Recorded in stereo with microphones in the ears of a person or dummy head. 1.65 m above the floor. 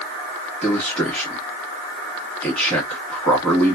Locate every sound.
0.6 s a man speaking: 10° left (ahead or behind), 1.1 m